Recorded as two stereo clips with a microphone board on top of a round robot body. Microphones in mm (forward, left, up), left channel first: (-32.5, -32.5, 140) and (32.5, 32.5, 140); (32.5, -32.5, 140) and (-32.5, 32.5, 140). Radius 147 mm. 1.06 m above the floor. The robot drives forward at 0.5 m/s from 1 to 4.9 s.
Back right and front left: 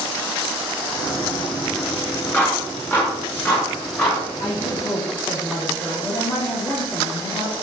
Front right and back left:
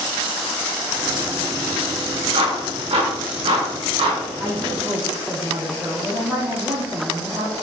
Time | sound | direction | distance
2.3 | a clap | 155° left | 1.5 m
4.4 | a woman speaking | 155° right | 2.5 m